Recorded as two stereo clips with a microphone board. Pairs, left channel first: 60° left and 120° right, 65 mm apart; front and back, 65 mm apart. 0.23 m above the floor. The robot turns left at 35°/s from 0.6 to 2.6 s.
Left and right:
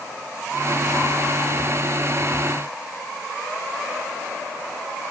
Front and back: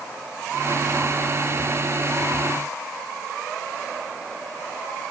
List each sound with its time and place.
Only background noise.